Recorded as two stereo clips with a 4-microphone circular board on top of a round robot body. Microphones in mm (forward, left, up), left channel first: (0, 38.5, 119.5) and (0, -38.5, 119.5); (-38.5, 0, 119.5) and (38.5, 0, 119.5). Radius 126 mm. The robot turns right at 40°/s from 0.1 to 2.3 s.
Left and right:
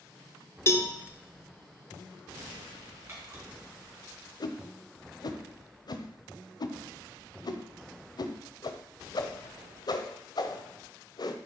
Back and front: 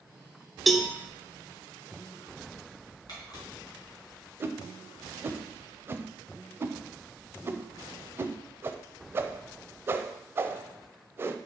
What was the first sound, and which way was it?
A cowbell, 90° left.